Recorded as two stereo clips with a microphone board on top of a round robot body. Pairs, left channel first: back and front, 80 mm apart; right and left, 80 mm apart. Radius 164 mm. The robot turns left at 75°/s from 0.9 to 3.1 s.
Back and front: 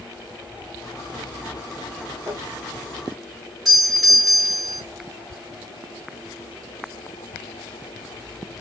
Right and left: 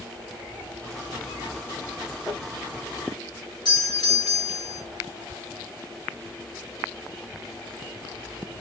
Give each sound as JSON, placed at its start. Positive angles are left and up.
{"t": 2.3, "sound": "crumpling", "azimuth_deg": -40, "distance_m": 3.5}
{"t": 3.6, "sound": "a doorbell", "azimuth_deg": -85, "distance_m": 4.0}